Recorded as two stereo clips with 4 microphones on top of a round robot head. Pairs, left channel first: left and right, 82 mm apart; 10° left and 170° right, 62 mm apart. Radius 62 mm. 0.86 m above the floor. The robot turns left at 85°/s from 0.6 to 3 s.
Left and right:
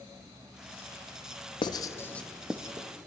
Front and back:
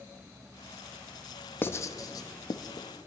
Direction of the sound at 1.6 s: 65° left.